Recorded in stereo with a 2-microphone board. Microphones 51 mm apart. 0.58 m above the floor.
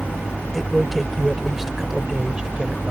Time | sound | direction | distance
0.5 | a man speaking | 5° left (ahead or behind) | ?